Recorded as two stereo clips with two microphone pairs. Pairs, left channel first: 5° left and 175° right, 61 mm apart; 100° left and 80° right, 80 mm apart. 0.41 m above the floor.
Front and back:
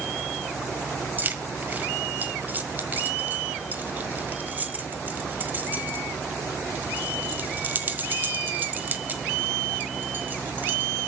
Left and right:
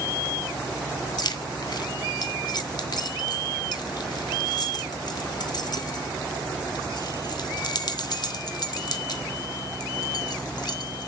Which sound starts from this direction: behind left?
Keys jangling, at 1.2 s.